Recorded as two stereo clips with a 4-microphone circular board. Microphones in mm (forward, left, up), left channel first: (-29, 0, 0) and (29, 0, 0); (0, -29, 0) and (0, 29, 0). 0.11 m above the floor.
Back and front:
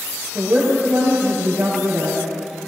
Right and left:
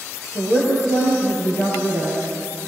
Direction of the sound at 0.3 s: 55° right.